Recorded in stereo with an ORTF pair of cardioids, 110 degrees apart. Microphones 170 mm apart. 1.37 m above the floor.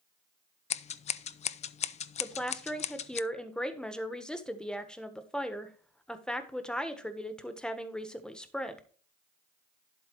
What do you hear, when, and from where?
0.7 s scissors: 40° left, 0.5 m
2.2 s a woman speaking: 5° left, 1.3 m